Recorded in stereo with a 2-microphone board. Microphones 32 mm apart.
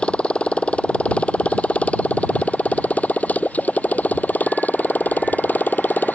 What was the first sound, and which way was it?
A motorcycle, 35° left (ahead or behind).